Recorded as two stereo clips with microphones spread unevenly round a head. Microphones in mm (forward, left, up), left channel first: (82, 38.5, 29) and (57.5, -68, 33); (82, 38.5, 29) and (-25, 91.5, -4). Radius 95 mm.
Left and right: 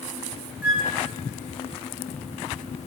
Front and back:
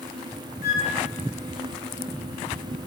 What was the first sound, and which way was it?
A flute, 25° right.